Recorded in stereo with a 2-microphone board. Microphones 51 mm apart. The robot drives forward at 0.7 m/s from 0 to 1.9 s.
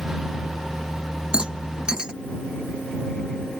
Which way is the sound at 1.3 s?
20° right (ahead or behind).